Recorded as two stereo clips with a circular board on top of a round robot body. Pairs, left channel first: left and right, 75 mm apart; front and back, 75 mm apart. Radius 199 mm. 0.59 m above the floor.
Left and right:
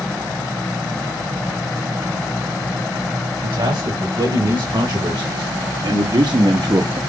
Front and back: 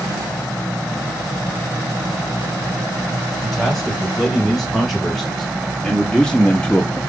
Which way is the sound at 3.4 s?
90° right.